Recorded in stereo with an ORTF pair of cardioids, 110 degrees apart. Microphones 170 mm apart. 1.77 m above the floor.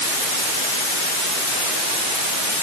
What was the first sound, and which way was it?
Only background noise.